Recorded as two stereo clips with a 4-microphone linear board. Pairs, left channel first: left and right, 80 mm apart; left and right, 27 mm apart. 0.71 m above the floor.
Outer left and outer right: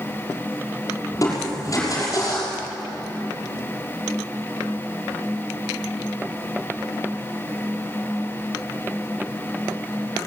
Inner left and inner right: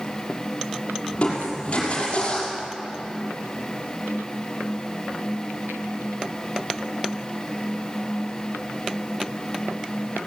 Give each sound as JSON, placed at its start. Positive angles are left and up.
{"t": 1.1, "sound": "crushing", "side_deg": 40, "distance_m": 5.5}